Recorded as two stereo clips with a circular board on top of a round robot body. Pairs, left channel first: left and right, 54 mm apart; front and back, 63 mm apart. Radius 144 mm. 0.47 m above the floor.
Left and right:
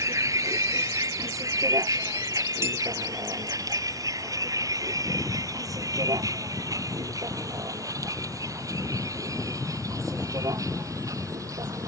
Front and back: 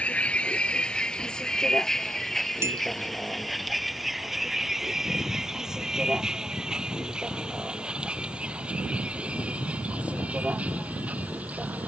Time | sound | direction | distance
0.0 | a vehicle | 70° right | ?
2.6 | a clink | 130° right | ?